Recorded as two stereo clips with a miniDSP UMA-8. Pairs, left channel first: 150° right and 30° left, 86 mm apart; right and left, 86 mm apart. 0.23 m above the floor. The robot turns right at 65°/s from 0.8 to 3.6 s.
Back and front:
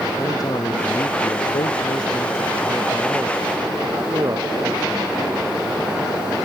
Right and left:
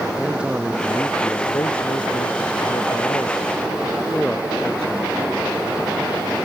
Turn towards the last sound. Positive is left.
turn(degrees=-10)